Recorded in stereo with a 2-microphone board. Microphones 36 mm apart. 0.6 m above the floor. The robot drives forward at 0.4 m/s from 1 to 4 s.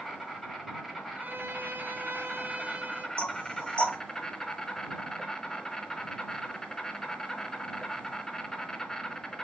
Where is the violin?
60° right (ahead or behind), 0.5 m; by 3.1 s 40° right (ahead or behind), 0.7 m.